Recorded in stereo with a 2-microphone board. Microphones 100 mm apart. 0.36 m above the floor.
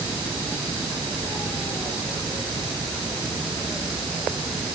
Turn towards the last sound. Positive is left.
No sound to turn to.